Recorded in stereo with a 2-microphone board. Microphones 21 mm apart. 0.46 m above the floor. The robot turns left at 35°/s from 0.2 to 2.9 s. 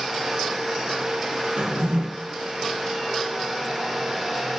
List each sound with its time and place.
1.6 s a drawer: 70° right (ahead or behind), 1.6 m; by 2.0 s 85° right, 1.6 m